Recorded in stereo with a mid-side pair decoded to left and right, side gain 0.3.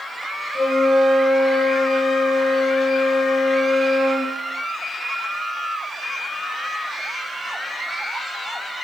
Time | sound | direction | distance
0.5 | a flute | 55° left | 5 m